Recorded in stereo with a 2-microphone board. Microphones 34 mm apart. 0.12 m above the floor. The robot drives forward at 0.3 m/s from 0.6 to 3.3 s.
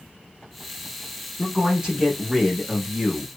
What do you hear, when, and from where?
1.4 s a man speaking: 15° right (ahead or behind), 1.1 m